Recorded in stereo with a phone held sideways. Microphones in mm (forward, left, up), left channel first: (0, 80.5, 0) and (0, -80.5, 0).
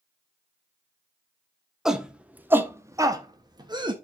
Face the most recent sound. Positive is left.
turn(degrees=-30)  # may be behind; listen again after turning